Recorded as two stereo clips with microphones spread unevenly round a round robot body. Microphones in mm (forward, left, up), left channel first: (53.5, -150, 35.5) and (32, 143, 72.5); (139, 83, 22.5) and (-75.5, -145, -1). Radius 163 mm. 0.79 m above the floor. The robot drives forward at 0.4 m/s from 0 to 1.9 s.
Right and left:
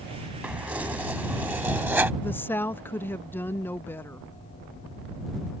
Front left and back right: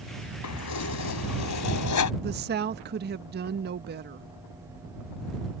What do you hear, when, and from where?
0.4 s keys jangling: 10° left
2.2 s a woman speaking: 155° right